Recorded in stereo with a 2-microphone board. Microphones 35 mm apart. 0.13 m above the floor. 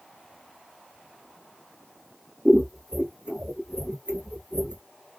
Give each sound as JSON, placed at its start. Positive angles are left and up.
{"t": 2.5, "sound": "scissors", "side_deg": -25, "distance_m": 1.4}